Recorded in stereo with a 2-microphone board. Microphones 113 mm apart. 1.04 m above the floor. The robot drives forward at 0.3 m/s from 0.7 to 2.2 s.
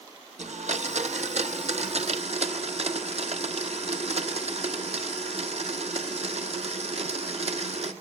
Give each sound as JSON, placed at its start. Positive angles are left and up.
{"t": 0.4, "sound": "a blender", "side_deg": -85, "distance_m": 1.4}